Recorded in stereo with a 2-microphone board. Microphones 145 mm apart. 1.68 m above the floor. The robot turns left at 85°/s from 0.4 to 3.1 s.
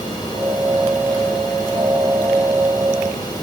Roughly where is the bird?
I don't hear a bird.